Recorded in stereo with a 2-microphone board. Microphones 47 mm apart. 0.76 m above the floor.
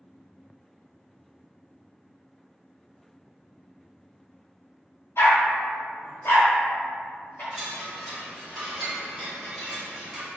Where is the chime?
Centre (ahead or behind), 2.0 m.